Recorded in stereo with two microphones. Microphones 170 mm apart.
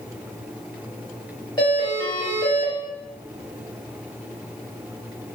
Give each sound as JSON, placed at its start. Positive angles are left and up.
{"t": 1.6, "sound": "a doorbell", "side_deg": 25, "distance_m": 1.0}